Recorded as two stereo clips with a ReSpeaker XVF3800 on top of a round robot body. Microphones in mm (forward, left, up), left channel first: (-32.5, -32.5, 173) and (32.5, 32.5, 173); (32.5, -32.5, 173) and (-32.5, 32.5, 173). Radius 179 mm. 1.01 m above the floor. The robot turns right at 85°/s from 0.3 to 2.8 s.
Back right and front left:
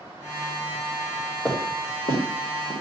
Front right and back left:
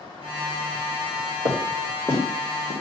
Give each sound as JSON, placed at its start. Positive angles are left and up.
{"t": 1.4, "sound": "footsteps", "azimuth_deg": 150, "distance_m": 4.5}